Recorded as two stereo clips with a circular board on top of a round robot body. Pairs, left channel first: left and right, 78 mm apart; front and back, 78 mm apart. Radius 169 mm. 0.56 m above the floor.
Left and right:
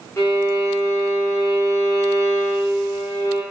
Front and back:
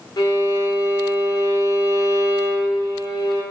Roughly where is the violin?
Ahead left.